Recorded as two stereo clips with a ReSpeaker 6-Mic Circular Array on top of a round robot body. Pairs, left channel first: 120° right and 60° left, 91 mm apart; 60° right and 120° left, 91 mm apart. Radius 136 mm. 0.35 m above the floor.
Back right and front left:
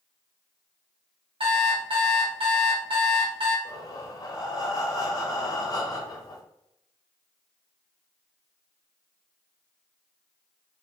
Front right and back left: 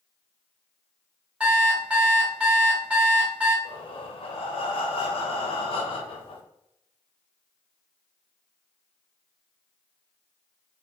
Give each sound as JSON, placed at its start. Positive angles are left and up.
{"t": 1.4, "sound": "an alarm clock", "azimuth_deg": 40, "distance_m": 1.1}
{"t": 3.6, "sound": "breathing", "azimuth_deg": -70, "distance_m": 0.6}